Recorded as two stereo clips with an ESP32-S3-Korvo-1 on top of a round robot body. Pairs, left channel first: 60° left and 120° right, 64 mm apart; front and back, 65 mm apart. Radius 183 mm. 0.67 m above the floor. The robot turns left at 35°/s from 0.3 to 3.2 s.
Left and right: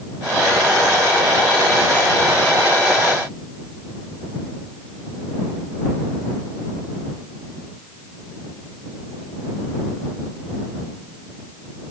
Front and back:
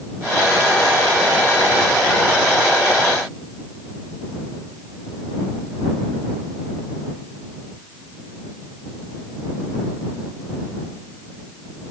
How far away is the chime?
No chime in this recording.